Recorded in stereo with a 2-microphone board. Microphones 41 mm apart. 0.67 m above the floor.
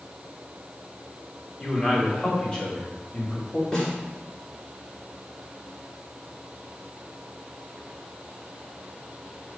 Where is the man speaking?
15° left (ahead or behind), 2.5 m; by 3.6 s 25° left (ahead or behind), 1.6 m.